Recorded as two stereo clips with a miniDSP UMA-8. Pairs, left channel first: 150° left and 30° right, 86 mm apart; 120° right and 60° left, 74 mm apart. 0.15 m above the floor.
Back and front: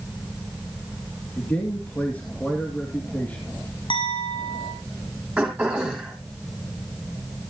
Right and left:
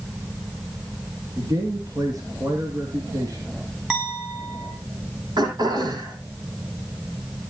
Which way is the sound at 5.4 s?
50° left.